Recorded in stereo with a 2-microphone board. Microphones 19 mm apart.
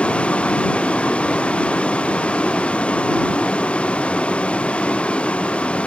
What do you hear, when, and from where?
0.0 s a vehicle: 90° left